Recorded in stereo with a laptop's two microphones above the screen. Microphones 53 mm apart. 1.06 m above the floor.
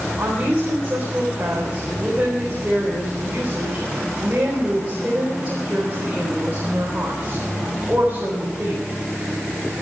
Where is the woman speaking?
25° right (ahead or behind), 3.5 m.